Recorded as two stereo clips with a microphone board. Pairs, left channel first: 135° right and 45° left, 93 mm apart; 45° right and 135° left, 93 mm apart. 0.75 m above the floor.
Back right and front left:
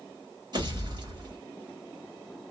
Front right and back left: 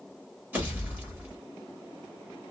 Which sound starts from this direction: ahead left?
A pop, at 0.5 s.